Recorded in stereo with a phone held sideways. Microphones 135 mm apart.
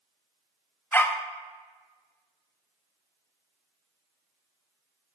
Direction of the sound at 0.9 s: 15° left (ahead or behind).